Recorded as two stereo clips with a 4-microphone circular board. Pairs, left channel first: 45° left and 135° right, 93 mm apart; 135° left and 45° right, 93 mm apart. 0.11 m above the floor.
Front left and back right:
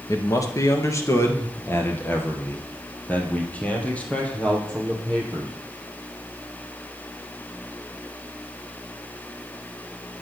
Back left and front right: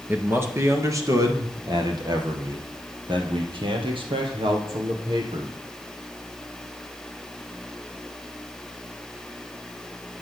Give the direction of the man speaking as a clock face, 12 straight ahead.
11 o'clock.